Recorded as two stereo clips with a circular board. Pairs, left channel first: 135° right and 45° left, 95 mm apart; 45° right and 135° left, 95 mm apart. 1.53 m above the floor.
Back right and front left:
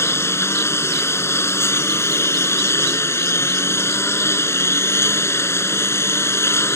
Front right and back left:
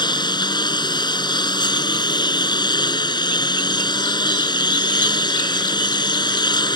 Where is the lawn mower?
75° right.